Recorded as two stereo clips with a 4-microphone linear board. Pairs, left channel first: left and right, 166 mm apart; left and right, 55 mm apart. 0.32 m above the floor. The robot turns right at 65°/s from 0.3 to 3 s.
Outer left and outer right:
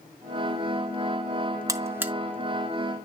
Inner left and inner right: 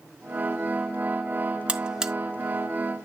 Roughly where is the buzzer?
Right.